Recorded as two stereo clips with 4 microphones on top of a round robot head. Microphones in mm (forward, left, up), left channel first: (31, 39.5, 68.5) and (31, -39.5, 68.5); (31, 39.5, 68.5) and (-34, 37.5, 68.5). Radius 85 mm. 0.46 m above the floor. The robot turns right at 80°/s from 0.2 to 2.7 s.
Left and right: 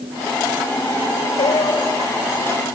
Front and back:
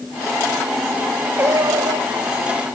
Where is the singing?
125° left; by 2.2 s 165° right.